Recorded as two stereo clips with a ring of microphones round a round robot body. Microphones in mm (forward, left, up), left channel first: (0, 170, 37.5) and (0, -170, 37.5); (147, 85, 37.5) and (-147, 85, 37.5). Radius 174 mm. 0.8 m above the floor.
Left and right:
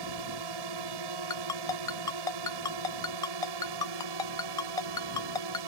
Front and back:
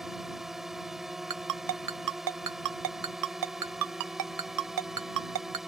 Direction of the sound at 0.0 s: 90° right.